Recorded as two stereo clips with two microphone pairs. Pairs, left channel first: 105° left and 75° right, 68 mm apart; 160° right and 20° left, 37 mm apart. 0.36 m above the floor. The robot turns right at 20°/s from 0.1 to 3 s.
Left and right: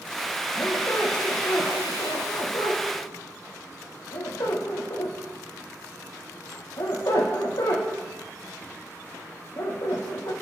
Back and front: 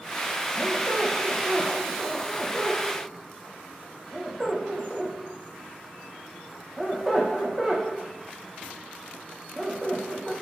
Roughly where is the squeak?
Ahead left.